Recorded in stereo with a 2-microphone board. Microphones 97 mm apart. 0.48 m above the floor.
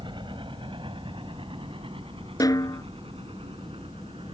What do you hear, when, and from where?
0.0 s a helicopter: 55° right (ahead or behind); by 4.3 s 70° right (ahead or behind)
2.4 s a snare drum: 40° left (ahead or behind)